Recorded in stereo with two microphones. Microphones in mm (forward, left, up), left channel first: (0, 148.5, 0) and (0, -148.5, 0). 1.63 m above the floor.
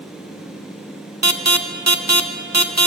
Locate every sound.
1.2 s an alarm: 60° right (ahead or behind), 1.3 m